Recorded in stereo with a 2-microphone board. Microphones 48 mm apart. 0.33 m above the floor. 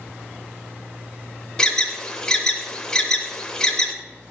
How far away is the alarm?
About 0.8 m.